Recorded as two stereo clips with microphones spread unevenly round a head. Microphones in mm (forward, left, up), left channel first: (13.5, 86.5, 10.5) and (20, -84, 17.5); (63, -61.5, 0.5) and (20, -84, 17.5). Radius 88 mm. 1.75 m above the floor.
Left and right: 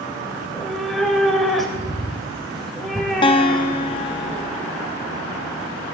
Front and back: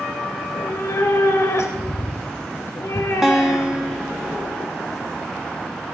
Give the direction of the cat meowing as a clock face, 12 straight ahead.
12 o'clock.